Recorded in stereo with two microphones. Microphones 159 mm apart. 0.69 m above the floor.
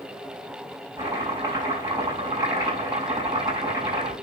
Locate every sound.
1.0 s chopping: 20° right (ahead or behind), 6.5 m